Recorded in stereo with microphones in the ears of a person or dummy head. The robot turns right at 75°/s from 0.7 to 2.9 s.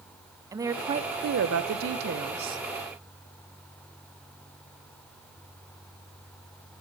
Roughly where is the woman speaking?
Behind.